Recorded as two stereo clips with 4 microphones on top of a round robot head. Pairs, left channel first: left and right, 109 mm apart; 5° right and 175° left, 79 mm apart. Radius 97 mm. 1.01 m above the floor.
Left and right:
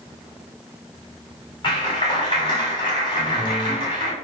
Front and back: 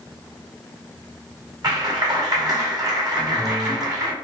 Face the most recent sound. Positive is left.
turn(degrees=140)